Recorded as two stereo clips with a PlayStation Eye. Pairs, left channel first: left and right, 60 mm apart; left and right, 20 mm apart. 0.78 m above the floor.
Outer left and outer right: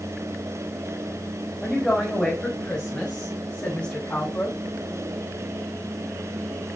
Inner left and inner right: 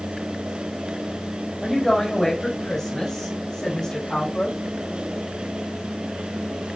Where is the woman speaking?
Centre (ahead or behind), 4 m; by 4.5 s 20° left (ahead or behind), 7.5 m.